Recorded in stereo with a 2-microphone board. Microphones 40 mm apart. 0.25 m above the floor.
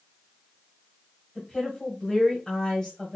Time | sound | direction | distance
1.4 | a woman speaking | 10° left (ahead or behind) | 1.5 m